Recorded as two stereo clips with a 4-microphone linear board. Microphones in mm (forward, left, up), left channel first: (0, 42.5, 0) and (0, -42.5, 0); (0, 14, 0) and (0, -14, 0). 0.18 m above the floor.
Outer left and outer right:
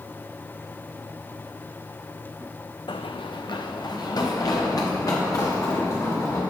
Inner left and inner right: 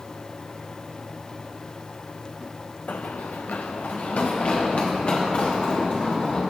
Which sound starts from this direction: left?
Running footsteps, at 2.9 s.